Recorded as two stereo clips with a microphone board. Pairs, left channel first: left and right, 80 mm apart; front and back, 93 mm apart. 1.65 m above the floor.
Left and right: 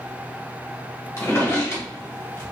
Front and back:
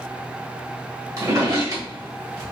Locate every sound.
1.2 s a drawer: 140° left, 1.5 m